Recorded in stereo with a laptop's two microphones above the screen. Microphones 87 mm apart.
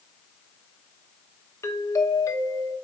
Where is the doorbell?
35° left (ahead or behind), 0.9 m.